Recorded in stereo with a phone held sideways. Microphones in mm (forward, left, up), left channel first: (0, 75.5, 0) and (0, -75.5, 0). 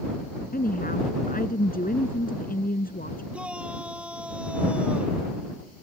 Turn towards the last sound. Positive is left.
turn(degrees=-10)  # may be behind; listen again after turning